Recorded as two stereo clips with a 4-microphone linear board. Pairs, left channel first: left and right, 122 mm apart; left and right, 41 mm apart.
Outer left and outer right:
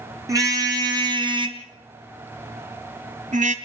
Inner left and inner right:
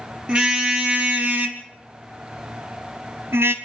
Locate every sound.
0.3 s a car horn: 25° right (ahead or behind), 3 m; by 3.5 s 80° right, 1.8 m